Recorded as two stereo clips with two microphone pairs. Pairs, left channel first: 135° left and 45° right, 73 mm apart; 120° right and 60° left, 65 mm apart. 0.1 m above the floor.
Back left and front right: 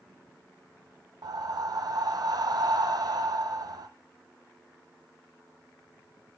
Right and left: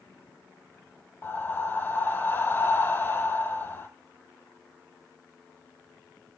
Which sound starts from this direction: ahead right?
Breathing, at 1.2 s.